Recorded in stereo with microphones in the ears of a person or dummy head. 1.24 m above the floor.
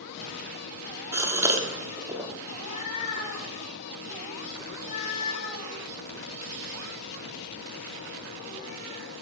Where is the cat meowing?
40° left (ahead or behind), 3.5 m.